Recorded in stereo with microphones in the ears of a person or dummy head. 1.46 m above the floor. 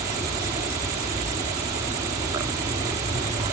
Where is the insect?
15° right (ahead or behind).